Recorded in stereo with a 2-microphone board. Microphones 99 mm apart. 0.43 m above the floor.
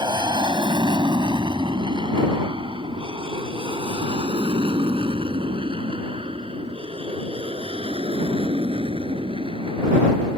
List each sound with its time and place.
0.0 s an aircraft: 50° right (ahead or behind); by 10.4 s 70° right (ahead or behind)